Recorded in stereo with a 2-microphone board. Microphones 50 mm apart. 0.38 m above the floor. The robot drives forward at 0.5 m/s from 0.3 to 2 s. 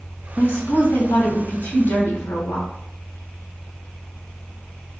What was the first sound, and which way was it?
A woman speaking, 55° left (ahead or behind).